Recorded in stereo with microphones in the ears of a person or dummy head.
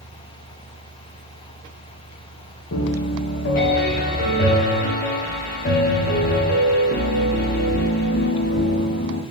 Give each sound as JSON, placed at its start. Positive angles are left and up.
{"t": 2.7, "sound": "a piano", "side_deg": 45, "distance_m": 0.5}